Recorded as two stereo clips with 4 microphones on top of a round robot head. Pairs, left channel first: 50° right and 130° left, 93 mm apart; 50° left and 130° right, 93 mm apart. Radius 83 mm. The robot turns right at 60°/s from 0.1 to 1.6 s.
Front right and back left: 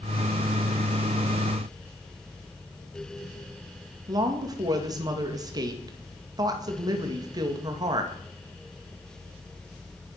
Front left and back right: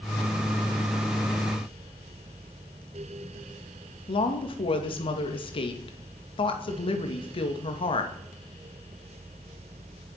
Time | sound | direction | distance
4.1 | a woman speaking | 80° left | 2.5 m